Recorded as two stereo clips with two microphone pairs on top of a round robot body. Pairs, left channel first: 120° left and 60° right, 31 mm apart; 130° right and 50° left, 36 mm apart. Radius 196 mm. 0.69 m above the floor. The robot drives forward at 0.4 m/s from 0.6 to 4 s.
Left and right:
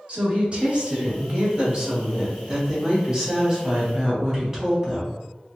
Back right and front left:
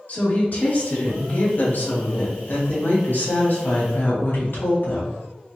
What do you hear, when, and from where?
0.1 s a woman speaking: 100° right, 1.8 m; by 5.2 s 140° right, 2.5 m